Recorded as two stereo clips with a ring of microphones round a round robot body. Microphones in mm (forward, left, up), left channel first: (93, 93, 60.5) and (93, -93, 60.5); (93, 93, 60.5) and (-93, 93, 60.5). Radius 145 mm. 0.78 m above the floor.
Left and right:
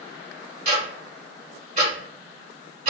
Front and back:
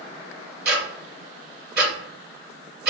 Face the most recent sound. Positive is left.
turn(degrees=-150)